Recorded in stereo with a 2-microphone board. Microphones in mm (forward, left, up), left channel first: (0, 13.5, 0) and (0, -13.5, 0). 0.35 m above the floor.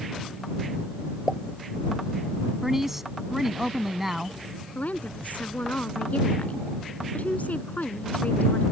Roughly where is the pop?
Centre.